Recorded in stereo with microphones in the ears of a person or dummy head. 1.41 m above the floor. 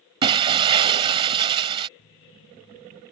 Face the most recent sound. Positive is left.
turn(degrees=45)  # may be behind; listen again after turning